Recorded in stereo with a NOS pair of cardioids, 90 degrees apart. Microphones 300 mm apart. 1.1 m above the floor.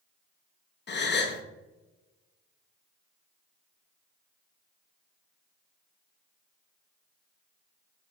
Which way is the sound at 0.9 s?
35° left.